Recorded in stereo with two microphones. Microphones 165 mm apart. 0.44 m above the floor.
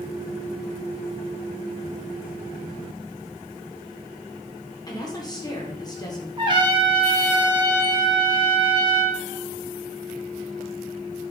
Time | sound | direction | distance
4.9 | a woman speaking | 25° left (ahead or behind) | 0.8 m
6.4 | a trumpet | 30° right (ahead or behind) | 0.7 m